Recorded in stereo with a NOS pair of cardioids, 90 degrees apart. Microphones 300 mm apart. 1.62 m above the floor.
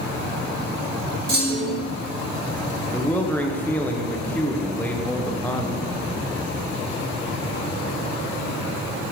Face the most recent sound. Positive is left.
turn(degrees=5)